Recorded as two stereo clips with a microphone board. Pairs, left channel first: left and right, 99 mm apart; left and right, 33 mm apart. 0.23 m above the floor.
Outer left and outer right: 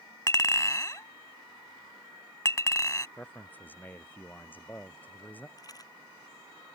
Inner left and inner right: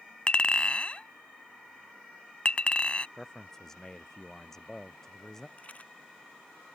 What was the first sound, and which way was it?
A clink, 35° left (ahead or behind).